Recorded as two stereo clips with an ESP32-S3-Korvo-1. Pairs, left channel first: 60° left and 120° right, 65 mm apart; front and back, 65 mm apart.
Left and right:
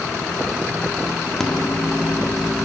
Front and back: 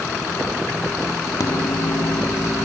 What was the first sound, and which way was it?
A microwave, 25° right.